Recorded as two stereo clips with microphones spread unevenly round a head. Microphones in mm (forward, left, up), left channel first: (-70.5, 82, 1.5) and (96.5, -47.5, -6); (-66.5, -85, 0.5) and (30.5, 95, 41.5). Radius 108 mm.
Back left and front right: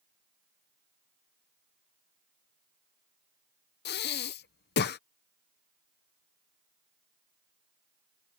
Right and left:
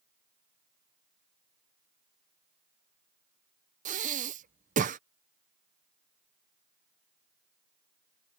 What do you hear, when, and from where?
3.9 s breathing: 105° left